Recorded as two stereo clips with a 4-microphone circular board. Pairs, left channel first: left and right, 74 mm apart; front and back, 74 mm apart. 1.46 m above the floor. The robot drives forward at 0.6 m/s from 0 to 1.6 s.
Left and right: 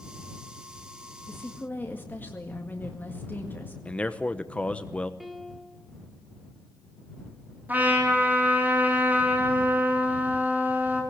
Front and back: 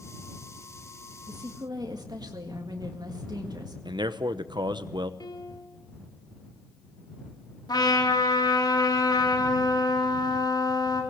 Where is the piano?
Straight ahead, 2.0 m.